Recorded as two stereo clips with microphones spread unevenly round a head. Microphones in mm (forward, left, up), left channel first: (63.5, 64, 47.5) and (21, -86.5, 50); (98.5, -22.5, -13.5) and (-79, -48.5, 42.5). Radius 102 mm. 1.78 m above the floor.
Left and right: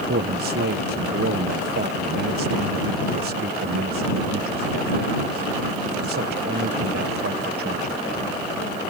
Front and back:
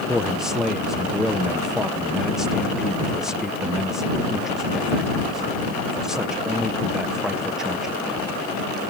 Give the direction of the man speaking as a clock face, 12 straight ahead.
3 o'clock.